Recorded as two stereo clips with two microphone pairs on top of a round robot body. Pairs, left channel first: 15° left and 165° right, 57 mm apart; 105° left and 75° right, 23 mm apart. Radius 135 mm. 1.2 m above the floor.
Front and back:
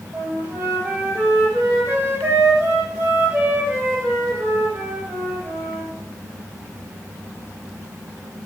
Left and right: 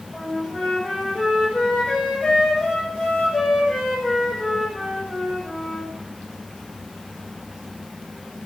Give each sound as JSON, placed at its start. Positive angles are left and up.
{"t": 0.1, "sound": "a flute", "azimuth_deg": 130, "distance_m": 6.5}